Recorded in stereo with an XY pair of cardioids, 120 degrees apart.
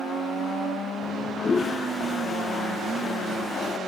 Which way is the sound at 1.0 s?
35° left.